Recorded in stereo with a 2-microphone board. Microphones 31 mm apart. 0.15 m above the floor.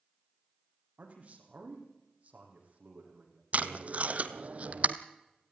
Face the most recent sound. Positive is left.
turn(degrees=-50)  # may be behind; listen again after turning